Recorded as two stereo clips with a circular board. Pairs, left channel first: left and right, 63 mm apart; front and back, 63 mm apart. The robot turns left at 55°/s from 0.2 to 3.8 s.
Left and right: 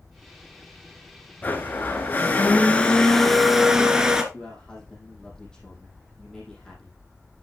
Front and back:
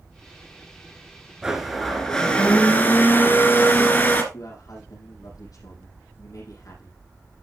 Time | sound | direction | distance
1.4 | a blender | 110° left | 1.5 m
4.3 | a man speaking | 10° left | 5 m